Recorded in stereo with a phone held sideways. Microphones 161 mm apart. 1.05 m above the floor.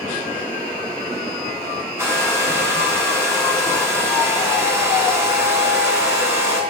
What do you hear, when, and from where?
2.0 s a hair dryer: 15° right (ahead or behind), 3.5 m